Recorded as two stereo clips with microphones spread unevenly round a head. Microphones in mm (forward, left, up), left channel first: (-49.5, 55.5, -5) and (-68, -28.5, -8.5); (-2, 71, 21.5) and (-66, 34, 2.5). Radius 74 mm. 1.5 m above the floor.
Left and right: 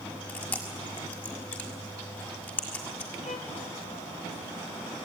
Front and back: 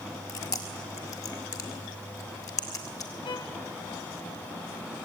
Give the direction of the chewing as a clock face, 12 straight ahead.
12 o'clock.